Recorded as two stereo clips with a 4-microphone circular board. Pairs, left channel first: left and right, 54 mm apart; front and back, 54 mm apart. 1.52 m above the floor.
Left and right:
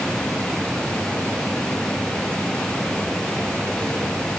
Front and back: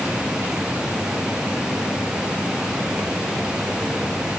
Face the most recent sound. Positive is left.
No sound to turn to.